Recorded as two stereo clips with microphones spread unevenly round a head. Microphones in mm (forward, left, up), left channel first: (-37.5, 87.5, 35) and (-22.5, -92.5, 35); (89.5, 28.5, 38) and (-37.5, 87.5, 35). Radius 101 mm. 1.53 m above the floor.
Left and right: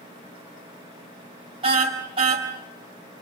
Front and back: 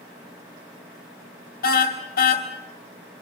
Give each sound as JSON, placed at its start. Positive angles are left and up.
{"t": 1.6, "sound": "a car horn", "azimuth_deg": -20, "distance_m": 4.0}